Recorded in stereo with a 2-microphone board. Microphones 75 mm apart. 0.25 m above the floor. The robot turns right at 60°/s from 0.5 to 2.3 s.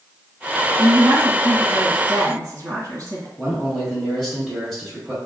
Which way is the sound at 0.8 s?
170° right.